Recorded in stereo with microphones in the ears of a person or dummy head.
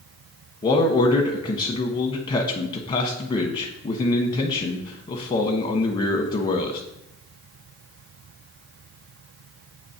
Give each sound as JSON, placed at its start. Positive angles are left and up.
{"t": 0.6, "sound": "a man speaking", "side_deg": 25, "distance_m": 1.0}